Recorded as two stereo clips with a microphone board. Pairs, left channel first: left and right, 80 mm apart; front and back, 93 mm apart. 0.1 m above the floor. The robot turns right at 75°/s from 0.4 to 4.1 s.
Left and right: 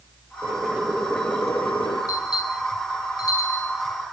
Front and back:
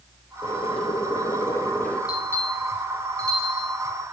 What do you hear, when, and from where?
0.4 s boiling: 40° right, 3 m; by 2.0 s 75° left, 3 m
2.1 s a bell: 45° left, 8.5 m; by 3.7 s 165° left, 8.5 m